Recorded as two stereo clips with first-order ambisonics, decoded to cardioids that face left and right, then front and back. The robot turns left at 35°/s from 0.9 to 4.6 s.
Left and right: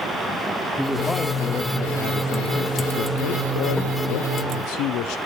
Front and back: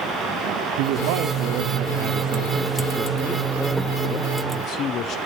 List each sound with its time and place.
0.8 s a man speaking: 175° right, 0.7 m; by 5.2 s 55° left, 0.7 m